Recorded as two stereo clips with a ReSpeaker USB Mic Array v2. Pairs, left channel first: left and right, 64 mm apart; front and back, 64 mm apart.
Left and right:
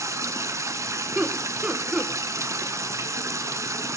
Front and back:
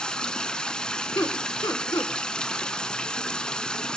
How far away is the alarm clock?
I don't hear an alarm clock.